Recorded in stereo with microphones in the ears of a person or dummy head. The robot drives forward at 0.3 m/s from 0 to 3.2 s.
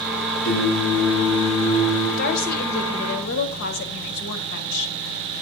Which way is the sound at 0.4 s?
70° left (ahead or behind).